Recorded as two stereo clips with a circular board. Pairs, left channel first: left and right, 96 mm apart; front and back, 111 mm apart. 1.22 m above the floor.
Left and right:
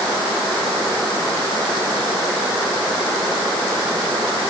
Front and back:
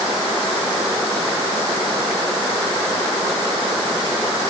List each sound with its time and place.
Only background noise.